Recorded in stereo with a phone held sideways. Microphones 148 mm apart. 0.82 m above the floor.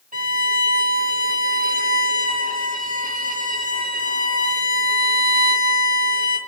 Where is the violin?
70° right (ahead or behind), 1.5 m.